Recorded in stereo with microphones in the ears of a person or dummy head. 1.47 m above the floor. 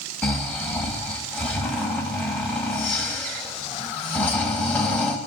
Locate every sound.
0.2 s snoring: 5° left (ahead or behind), 1.3 m